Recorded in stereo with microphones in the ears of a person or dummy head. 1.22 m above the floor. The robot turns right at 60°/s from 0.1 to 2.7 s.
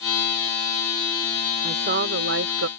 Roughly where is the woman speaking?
Behind right.